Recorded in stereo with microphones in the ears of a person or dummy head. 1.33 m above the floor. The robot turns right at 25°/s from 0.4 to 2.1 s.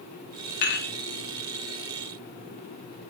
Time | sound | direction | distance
0.6 | dishes clattering | 45° left (ahead or behind) | 0.9 m